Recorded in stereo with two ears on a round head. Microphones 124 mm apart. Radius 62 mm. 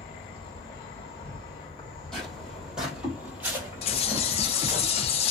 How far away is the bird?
About 0.5 m.